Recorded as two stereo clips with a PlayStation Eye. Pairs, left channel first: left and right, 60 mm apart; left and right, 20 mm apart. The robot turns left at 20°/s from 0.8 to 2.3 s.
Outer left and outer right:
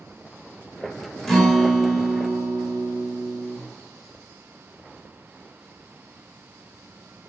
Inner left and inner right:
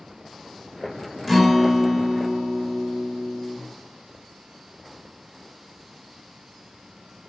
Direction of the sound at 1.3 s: 10° left (ahead or behind).